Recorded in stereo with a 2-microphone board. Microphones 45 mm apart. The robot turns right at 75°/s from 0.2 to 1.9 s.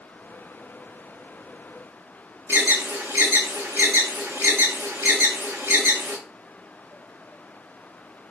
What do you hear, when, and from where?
2.5 s an alarm: 65° right (ahead or behind), 3.5 m